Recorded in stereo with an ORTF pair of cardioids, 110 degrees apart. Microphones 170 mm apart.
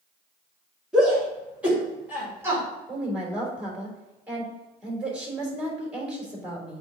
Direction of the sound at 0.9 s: 5° right.